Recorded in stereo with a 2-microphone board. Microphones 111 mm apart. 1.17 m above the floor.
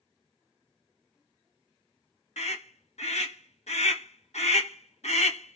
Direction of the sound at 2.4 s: 80° left.